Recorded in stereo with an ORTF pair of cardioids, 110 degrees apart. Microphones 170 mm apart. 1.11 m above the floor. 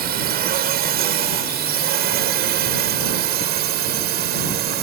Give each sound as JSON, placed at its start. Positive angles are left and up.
{"t": 0.0, "sound": "a drone", "azimuth_deg": -70}